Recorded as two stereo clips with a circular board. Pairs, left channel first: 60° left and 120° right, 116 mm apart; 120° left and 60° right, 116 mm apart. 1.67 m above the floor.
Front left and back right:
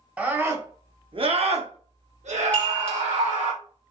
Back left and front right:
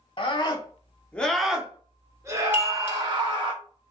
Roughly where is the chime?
Ahead.